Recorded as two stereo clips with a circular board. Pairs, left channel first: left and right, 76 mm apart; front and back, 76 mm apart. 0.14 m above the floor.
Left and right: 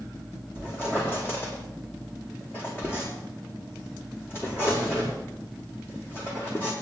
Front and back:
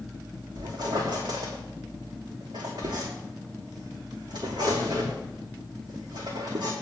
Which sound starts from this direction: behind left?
A squeak, at 0.6 s.